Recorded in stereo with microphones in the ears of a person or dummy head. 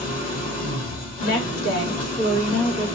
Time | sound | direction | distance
0.0 | an engine running | 40° left (ahead or behind) | 2.5 m
1.2 | a woman speaking | 75° left (ahead or behind) | 2.5 m